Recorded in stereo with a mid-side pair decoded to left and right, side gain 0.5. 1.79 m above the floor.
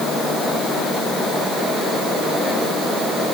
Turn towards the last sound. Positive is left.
No sound to turn to.